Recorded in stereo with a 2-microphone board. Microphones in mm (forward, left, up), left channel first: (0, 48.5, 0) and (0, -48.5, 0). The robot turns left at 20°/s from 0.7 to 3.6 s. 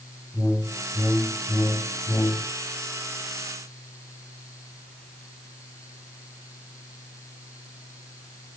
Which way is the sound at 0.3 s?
170° left.